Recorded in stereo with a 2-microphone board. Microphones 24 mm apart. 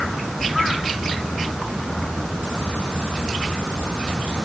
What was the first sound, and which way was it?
Only background noise.